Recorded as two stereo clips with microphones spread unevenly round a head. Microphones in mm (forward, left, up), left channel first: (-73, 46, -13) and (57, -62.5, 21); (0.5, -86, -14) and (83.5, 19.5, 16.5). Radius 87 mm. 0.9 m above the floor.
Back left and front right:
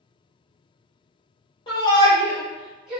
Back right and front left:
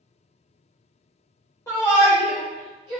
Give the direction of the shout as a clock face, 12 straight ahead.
6 o'clock.